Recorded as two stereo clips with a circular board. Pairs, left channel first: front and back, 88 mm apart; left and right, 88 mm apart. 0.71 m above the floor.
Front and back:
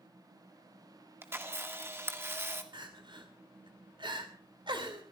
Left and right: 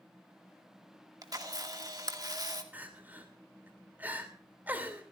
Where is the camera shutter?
120° right, 1.9 m.